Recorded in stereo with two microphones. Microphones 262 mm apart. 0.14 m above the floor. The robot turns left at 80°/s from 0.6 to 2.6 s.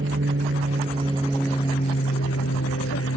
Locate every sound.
0.0 s an aircraft: 120° right; by 3.2 s 80° left